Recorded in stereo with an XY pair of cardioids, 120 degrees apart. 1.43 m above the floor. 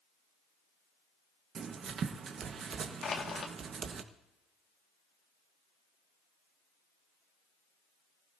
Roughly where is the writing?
Ahead right.